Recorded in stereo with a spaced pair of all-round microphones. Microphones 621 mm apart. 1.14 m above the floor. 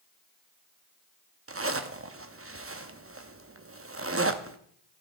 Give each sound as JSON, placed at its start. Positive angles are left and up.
{"t": 1.5, "sound": "a zipper", "side_deg": -25, "distance_m": 0.6}